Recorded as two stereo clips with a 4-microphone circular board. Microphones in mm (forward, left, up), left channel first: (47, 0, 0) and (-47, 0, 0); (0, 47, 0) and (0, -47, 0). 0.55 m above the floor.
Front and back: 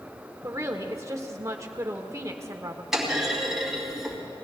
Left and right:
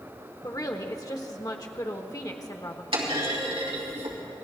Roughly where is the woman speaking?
Behind left.